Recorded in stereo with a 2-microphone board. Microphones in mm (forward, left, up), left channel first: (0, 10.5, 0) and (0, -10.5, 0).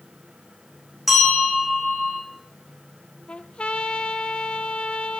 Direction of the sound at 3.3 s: 70° left (ahead or behind).